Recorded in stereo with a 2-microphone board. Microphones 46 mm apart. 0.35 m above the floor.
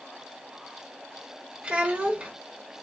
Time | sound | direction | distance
1.6 | a child speaking | 25° right (ahead or behind) | 0.5 m